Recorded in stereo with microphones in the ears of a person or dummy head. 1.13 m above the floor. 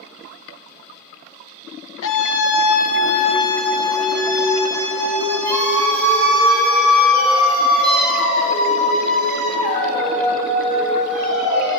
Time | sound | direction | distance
2.0 | a scream | 75° left (ahead or behind) | 1.0 m